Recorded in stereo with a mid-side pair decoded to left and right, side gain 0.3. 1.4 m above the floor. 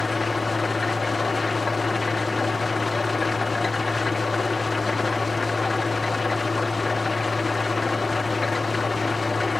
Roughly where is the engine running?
Ahead left.